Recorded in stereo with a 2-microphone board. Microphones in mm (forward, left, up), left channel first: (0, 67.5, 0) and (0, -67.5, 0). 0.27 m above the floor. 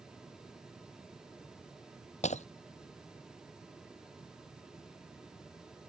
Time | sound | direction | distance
2.2 | breaking glass | 60° left (ahead or behind) | ?